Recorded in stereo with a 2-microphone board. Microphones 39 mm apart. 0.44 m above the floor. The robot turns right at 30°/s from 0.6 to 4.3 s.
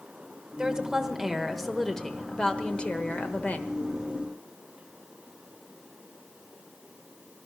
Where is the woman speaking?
30° right, 1.3 m; by 3.7 s 60° left, 1.3 m.